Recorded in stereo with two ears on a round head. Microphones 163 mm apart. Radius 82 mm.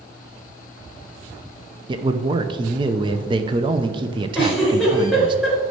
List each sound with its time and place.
1.9 s a man speaking: 25° right (ahead or behind), 0.7 m
4.3 s a giggle: 5° right (ahead or behind), 4 m